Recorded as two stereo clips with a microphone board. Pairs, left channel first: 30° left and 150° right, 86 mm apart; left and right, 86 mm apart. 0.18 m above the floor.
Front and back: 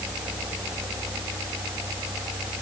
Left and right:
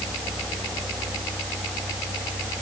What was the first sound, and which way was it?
Only background noise.